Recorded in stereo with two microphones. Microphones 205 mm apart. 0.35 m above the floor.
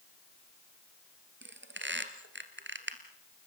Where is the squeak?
70° right (ahead or behind), 2.0 m.